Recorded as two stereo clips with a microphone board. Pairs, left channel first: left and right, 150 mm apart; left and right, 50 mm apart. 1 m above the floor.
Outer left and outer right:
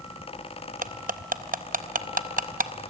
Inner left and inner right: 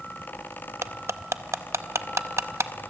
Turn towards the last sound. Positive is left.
turn(degrees=-70)  # may be behind; listen again after turning